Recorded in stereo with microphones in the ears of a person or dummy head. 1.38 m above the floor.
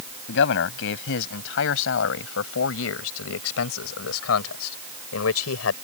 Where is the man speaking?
70° left (ahead or behind); by 5.8 s 85° left.